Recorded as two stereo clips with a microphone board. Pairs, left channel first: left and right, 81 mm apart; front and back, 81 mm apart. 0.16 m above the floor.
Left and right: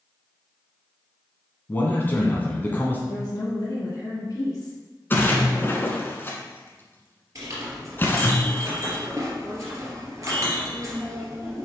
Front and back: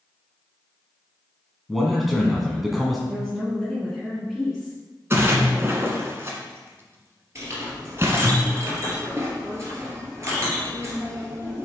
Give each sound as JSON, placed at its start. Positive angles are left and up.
{"t": 1.7, "sound": "a man speaking", "azimuth_deg": 95, "distance_m": 1.5}
{"t": 3.1, "sound": "a woman speaking", "azimuth_deg": 90, "distance_m": 1.8}
{"t": 5.1, "sound": "a splash", "azimuth_deg": 140, "distance_m": 1.3}
{"t": 7.3, "sound": "a clink", "azimuth_deg": -130, "distance_m": 2.5}